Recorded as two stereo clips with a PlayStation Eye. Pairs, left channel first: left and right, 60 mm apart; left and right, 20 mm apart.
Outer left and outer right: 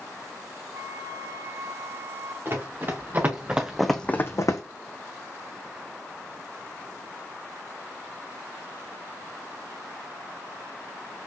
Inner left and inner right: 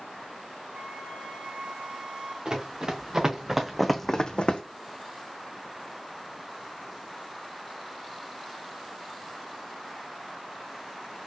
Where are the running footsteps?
40° right (ahead or behind), 2.5 m; by 4.6 s 70° left (ahead or behind), 1.0 m.